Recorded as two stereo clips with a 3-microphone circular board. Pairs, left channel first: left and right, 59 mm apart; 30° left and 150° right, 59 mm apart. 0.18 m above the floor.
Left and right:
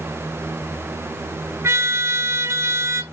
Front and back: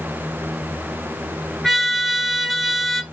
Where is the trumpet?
55° right, 1.0 m.